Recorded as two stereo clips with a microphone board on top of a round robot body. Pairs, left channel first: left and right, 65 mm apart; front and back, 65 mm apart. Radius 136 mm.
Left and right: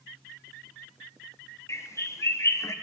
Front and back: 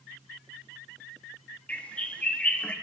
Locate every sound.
1.7 s a bird: 65° left, 1.0 m